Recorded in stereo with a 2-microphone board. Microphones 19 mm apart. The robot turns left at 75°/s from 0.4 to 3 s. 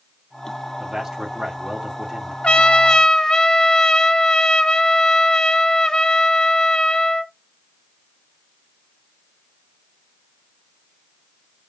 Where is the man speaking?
30° right, 1.1 m; by 2.3 s 145° right, 1.1 m.